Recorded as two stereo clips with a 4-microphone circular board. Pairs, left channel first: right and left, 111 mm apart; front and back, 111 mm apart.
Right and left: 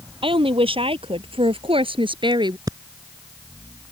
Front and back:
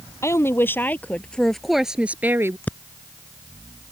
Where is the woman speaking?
60° left; by 2.6 s 120° left.